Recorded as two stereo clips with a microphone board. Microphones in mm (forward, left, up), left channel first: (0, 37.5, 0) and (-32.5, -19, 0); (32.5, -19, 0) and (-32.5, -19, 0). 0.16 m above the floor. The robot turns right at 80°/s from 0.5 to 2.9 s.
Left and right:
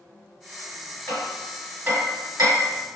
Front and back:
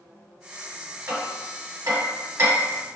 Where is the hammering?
120° left, 1.9 m; by 2.9 s 95° right, 1.9 m.